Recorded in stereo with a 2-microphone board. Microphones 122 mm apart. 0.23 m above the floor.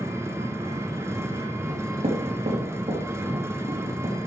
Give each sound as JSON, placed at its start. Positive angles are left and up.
{"t": 0.0, "sound": "an engine running", "side_deg": -20, "distance_m": 1.1}
{"t": 1.7, "sound": "knocking", "side_deg": -70, "distance_m": 4.0}